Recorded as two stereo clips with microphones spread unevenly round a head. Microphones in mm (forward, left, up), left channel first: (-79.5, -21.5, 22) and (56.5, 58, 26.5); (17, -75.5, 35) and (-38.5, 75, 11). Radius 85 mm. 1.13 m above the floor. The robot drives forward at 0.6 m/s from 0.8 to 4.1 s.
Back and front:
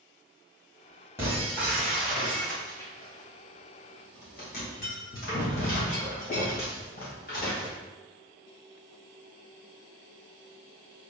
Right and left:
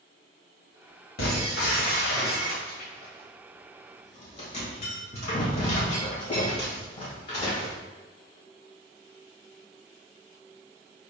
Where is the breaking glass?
45° right, 1.9 m; by 7.8 s 110° right, 1.5 m.